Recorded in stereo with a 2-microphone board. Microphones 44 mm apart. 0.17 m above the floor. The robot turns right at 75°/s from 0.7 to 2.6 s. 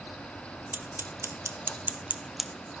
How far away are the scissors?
About 1.1 m.